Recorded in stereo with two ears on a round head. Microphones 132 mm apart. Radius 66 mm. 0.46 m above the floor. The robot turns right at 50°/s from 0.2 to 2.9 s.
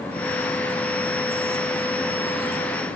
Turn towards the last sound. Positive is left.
No sound to turn to.